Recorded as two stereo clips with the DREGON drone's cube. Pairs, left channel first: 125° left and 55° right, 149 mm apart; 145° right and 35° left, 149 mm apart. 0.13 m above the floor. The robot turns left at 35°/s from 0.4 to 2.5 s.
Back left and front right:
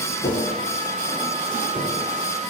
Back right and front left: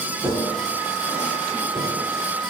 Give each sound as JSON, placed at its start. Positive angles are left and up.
{"t": 0.2, "sound": "tapping", "azimuth_deg": 120, "distance_m": 5.5}